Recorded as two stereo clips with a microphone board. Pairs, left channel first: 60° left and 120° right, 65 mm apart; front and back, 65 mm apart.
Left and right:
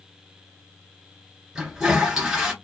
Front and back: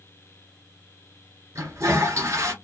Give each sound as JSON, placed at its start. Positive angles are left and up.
{"t": 1.6, "sound": "a toilet flushing", "azimuth_deg": 160, "distance_m": 1.7}